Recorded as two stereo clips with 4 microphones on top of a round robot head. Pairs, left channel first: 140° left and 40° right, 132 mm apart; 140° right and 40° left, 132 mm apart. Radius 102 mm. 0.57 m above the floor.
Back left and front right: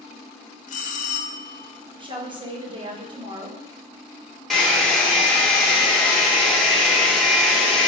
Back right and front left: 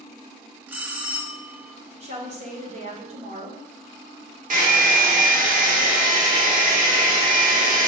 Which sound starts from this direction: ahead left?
A hair dryer, at 4.5 s.